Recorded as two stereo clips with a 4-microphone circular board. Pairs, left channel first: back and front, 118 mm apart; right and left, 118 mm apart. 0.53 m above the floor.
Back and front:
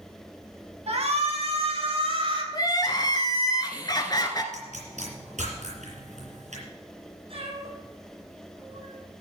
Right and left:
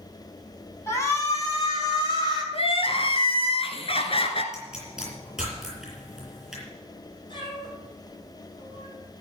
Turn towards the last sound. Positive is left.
turn(degrees=-40)